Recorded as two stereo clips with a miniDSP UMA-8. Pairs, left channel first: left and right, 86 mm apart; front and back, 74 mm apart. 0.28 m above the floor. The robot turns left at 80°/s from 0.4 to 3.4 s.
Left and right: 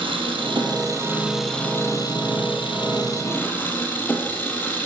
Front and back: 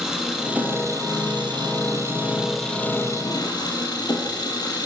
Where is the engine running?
95° right, 5 m; by 4.9 s 25° left, 5 m.